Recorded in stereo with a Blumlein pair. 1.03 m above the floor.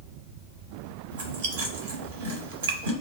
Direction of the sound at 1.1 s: 60° right.